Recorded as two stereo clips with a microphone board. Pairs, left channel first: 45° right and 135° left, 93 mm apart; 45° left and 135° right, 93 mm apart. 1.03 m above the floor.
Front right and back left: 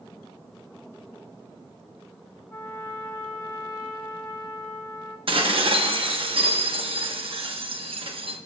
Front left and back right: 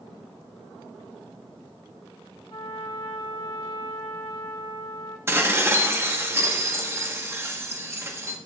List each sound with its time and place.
2.5 s a trumpet: 25° left, 1.6 m
5.3 s dishes clattering: 160° left, 1.0 m